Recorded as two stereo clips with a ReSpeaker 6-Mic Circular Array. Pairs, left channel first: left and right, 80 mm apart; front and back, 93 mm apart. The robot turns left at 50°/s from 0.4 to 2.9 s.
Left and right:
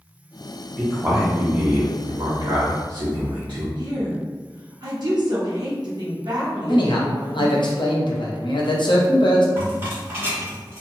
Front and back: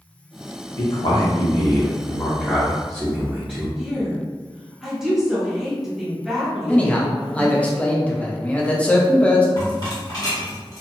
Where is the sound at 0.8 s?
5° left, 0.6 m; by 3.7 s 100° right, 0.6 m.